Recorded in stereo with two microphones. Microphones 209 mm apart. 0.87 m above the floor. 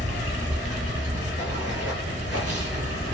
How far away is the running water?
About 1.4 m.